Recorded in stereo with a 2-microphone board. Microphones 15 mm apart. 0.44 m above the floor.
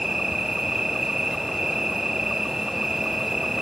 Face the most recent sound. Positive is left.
turn(degrees=-40)  # may be behind; listen again after turning